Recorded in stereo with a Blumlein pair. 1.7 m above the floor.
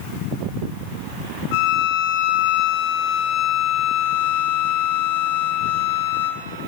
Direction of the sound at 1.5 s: 45° left.